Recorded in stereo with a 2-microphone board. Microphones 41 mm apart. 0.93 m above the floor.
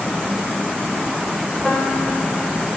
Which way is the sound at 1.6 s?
20° left (ahead or behind).